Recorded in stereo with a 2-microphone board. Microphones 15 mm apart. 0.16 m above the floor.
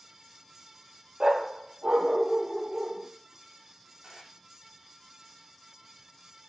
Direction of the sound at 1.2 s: 65° right (ahead or behind).